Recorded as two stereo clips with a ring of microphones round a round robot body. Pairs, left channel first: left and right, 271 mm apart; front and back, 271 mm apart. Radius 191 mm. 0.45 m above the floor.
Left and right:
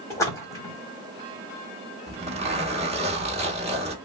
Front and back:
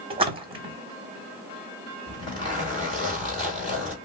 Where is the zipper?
55° right, 1.5 m.